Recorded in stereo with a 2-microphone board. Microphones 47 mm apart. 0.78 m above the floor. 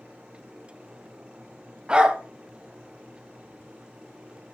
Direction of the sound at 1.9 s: 20° right (ahead or behind).